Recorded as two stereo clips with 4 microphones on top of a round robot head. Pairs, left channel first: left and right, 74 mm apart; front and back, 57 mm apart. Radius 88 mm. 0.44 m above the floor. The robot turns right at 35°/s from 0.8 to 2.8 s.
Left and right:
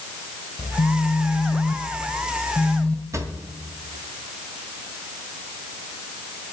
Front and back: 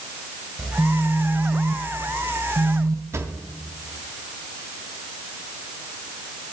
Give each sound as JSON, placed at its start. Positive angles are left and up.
{"t": 0.6, "sound": "a phone buzzing", "azimuth_deg": 100, "distance_m": 1.0}
{"t": 3.1, "sound": "a drawer", "azimuth_deg": -140, "distance_m": 1.4}